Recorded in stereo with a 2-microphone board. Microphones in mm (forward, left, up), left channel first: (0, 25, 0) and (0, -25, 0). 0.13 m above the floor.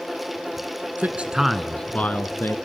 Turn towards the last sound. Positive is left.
turn(degrees=50)  # may be behind; listen again after turning